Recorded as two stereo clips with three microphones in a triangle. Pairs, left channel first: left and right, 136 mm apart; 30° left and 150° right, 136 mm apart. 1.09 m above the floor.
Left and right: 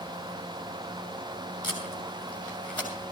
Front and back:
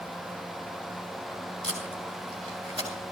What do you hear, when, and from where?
1.6 s tape being pulled: 170° left, 7.5 m